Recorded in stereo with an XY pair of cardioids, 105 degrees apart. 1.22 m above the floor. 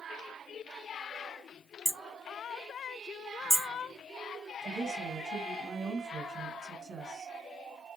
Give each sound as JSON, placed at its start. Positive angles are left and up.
{"t": 1.9, "sound": "hammering", "azimuth_deg": -5, "distance_m": 0.5}
{"t": 4.6, "sound": "a woman speaking", "azimuth_deg": -45, "distance_m": 1.2}